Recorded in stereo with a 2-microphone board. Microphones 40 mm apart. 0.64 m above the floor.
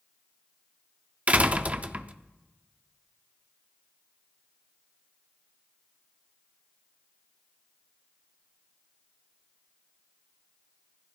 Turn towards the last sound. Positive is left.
turn(degrees=-35)  # may be behind; listen again after turning